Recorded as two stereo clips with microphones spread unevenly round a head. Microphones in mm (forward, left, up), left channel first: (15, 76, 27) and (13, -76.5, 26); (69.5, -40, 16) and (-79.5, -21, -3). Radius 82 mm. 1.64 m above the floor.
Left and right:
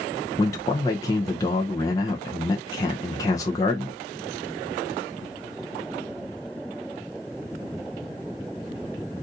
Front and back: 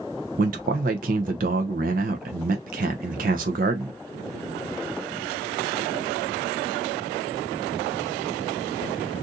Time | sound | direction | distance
0.4 | a man speaking | 155° left | 0.6 m